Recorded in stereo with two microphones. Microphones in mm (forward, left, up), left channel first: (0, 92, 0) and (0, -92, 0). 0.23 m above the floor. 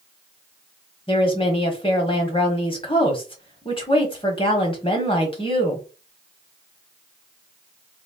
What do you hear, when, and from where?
1.1 s a woman speaking: 30° left (ahead or behind), 1.1 m